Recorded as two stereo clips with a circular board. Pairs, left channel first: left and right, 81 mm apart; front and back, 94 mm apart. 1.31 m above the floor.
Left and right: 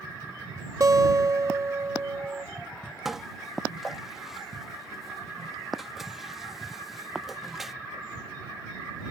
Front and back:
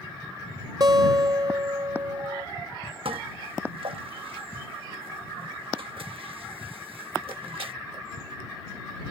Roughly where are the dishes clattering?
Behind.